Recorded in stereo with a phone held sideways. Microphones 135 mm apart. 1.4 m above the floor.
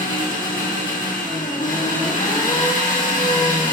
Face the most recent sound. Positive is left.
turn(degrees=75)  # may be behind; listen again after turning